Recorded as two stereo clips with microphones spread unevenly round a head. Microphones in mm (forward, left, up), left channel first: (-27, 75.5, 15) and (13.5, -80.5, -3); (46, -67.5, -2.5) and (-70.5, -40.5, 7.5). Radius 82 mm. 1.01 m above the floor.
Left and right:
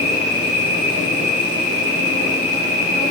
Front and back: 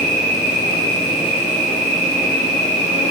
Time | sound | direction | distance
0.0 | an insect | straight behind | 1.3 m